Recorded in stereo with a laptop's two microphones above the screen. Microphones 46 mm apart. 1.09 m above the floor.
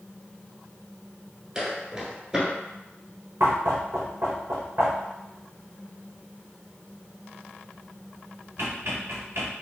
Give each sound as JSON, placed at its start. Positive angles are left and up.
{"t": 1.6, "sound": "footsteps", "side_deg": -15, "distance_m": 1.1}
{"t": 3.4, "sound": "knocking", "side_deg": -70, "distance_m": 0.6}